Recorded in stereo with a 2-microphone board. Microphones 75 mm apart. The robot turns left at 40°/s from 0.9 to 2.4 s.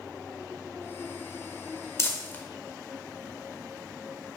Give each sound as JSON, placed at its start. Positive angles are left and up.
{"t": 2.0, "sound": "crumpling", "side_deg": 40, "distance_m": 1.2}